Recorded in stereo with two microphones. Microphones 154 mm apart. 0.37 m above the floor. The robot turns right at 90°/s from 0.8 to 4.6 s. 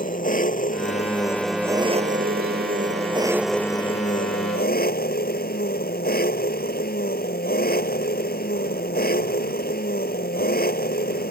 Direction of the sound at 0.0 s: 115° left.